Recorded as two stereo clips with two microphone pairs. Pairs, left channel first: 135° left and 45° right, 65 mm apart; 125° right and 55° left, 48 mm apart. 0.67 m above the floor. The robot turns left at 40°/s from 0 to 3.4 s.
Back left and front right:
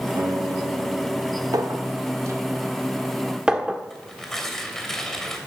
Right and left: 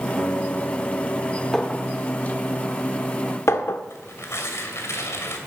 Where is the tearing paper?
145° right, 2.5 m.